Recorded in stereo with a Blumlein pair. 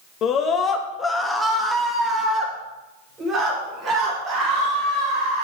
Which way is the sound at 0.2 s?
30° left.